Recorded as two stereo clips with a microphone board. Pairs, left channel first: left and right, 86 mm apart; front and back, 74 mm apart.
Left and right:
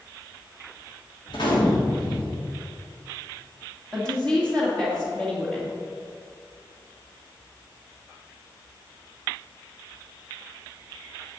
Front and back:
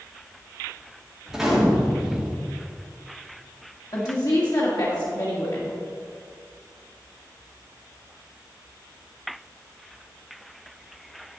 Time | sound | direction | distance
1.3 | a gunshot | 95° left | 2.5 m
3.9 | a woman speaking | 10° left | 2 m